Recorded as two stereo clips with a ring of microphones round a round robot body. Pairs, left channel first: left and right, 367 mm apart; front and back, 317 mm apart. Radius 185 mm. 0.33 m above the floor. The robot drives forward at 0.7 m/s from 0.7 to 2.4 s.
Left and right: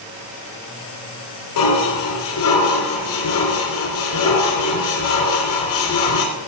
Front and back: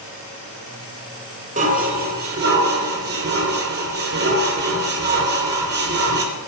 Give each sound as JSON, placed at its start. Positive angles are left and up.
{"t": 1.6, "sound": "dishes clattering", "azimuth_deg": 115, "distance_m": 3.0}